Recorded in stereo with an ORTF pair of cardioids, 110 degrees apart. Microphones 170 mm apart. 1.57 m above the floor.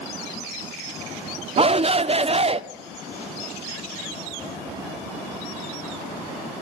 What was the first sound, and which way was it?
A shout, 35° right.